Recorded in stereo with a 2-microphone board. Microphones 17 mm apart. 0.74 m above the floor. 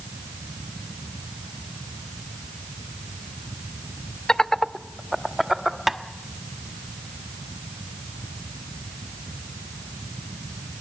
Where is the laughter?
45° left (ahead or behind), 0.8 m; by 5.8 s 15° right (ahead or behind), 1.6 m.